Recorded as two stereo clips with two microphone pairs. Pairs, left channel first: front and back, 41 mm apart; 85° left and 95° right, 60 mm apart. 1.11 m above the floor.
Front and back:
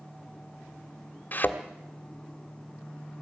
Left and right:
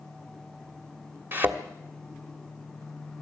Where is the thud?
40° right, 1.5 m.